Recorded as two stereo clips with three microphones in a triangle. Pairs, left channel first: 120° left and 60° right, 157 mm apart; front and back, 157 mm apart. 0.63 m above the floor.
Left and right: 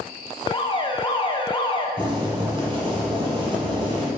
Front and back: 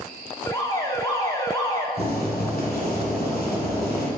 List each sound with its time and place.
0.5 s an alarm: 65° left, 0.7 m
2.0 s boiling: 5° right, 2 m